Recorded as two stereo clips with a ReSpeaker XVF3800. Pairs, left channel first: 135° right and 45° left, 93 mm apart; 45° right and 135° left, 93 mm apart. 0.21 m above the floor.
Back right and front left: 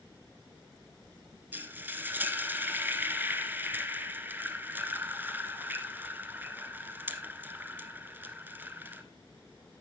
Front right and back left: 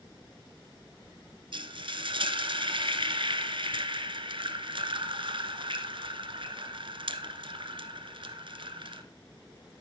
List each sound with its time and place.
1.5 s frying: 115° left, 1.2 m